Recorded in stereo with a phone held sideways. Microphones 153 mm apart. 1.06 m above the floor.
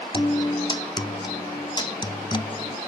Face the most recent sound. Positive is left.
turn(degrees=30)  # may be behind; listen again after turning